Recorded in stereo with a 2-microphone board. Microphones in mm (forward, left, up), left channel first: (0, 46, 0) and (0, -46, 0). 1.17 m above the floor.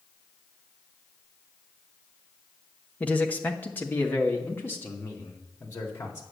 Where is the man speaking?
15° left (ahead or behind), 1.3 m; by 6.2 s 30° left (ahead or behind), 3.5 m.